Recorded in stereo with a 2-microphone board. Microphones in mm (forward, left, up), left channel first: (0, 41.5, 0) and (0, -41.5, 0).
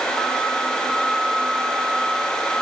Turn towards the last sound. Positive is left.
No sound to turn to.